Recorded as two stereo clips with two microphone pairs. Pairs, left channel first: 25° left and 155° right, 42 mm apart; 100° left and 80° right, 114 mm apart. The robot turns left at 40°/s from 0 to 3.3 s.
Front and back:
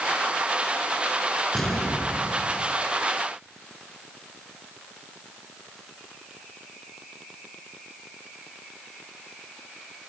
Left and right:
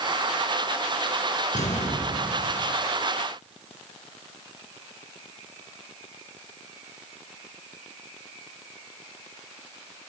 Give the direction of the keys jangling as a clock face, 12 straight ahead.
I don't hear keys jangling.